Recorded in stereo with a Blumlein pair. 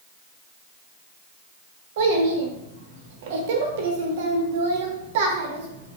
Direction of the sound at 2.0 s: 55° right.